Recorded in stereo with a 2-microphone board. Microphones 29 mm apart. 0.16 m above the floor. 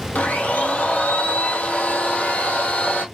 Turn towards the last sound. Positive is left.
turn(degrees=75)  # may be behind; listen again after turning